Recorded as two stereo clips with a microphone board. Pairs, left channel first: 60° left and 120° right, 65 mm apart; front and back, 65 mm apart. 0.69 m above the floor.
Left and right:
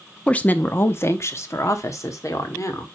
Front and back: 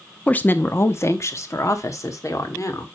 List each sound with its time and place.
0.3 s a woman speaking: 20° left, 0.5 m; by 2.9 s 30° left, 1.7 m